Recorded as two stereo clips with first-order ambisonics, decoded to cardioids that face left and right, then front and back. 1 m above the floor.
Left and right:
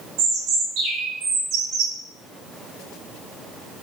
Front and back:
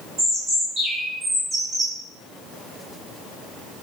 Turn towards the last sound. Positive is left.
turn(degrees=-115)